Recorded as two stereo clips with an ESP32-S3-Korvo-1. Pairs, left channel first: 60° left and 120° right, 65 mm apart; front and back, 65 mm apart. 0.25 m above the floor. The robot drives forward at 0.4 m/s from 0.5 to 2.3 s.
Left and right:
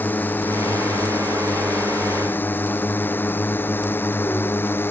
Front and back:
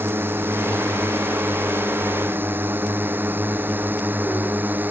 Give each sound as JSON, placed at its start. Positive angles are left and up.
{"t": 0.0, "sound": "a drone", "azimuth_deg": 125}